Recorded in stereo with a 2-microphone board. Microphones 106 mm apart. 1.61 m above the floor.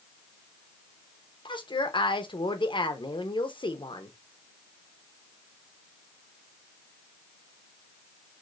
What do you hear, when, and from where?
1.4 s a woman speaking: 50° left (ahead or behind), 1.0 m